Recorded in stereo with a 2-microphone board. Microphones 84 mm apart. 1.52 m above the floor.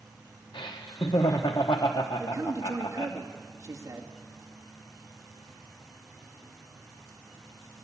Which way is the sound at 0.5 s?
70° left (ahead or behind).